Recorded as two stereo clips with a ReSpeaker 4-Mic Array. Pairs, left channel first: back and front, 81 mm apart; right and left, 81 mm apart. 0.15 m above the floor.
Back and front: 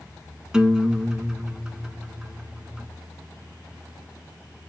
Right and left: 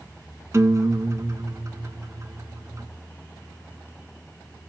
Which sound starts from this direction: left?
A guitar, at 0.5 s.